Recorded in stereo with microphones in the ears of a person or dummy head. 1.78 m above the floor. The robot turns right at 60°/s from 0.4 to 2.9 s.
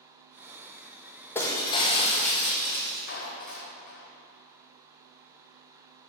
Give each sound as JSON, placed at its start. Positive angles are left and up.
{"t": 1.4, "sound": "breaking glass", "azimuth_deg": 15, "distance_m": 1.3}
{"t": 3.1, "sound": "a clap", "side_deg": 55, "distance_m": 0.9}